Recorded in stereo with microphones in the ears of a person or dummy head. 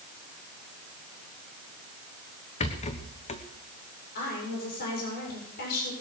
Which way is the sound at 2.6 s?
35° left (ahead or behind).